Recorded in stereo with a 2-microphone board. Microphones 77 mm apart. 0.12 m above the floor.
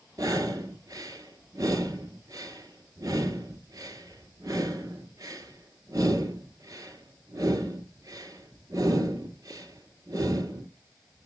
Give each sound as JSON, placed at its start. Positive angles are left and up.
{"t": 0.2, "sound": "breathing", "side_deg": -50, "distance_m": 1.8}